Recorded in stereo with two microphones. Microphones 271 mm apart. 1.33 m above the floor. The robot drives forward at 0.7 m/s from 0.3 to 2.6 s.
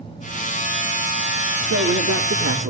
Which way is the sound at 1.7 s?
85° right.